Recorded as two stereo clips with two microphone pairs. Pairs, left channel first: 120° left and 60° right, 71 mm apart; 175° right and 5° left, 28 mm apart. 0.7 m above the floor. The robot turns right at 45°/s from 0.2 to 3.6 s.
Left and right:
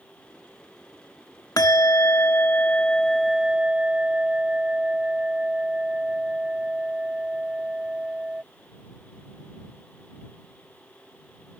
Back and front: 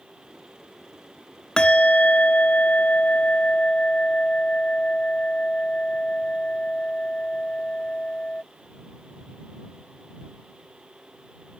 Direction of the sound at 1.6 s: 135° left.